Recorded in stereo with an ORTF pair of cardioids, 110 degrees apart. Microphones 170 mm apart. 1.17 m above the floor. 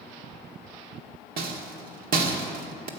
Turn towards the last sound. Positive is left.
turn(degrees=-60)